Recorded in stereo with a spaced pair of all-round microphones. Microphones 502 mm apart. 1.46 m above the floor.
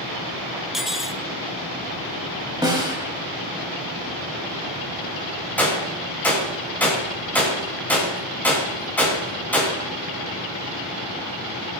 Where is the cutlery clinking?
Centre (ahead or behind), 0.6 m.